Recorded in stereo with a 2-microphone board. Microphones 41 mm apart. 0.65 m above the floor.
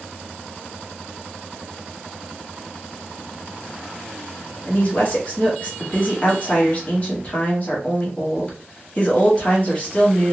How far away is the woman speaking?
About 1.2 m.